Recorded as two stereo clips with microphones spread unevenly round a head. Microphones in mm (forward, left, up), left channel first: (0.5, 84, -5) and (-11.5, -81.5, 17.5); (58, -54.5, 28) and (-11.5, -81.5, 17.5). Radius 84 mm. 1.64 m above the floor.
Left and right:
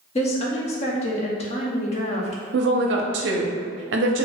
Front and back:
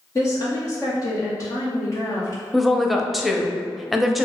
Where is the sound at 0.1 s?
35° left, 0.6 m.